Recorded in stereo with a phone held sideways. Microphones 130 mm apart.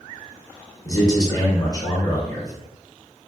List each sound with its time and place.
0.8 s a man speaking: 30° left (ahead or behind), 0.8 m